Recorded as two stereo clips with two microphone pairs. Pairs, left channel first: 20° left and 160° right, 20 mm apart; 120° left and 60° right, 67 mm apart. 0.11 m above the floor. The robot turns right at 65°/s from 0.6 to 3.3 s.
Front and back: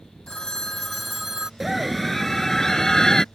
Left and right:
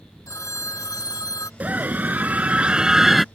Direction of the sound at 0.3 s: 85° left.